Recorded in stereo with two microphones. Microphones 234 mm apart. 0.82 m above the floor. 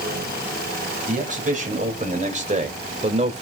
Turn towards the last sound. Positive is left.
turn(degrees=-30)  # may be behind; listen again after turning